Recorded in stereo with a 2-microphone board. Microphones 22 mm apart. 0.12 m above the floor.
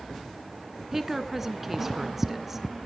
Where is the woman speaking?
15° right (ahead or behind), 1.0 m.